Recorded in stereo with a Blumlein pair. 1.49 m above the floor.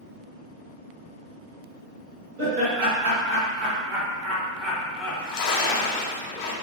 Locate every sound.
2.4 s laughter: 45° right, 1.6 m; by 6.0 s 50° left, 0.9 m
5.0 s a splash: 40° left, 0.7 m